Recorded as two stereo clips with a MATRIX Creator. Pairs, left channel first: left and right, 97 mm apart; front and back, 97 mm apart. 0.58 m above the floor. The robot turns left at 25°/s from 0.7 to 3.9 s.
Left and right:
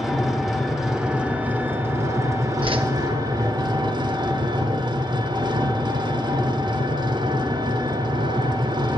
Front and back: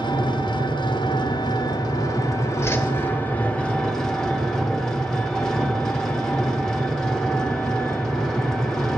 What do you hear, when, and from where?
0.0 s an engine running: straight ahead, 0.8 m; by 9.0 s 80° right, 0.8 m
2.6 s a whoosh: 60° right, 0.6 m; by 2.9 s 65° right, 0.6 m